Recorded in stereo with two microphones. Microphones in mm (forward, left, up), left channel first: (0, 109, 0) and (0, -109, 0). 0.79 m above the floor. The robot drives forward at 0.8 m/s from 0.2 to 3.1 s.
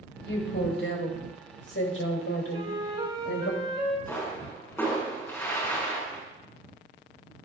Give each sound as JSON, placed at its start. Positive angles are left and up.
{"t": 0.2, "sound": "a woman speaking", "side_deg": 55, "distance_m": 4.0}
{"t": 2.5, "sound": "a flute", "side_deg": -20, "distance_m": 3.0}
{"t": 4.1, "sound": "a pop", "side_deg": 10, "distance_m": 6.0}